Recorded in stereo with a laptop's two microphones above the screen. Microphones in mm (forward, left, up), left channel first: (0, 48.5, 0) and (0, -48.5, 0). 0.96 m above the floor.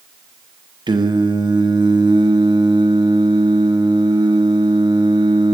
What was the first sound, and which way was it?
Singing, 50° right (ahead or behind).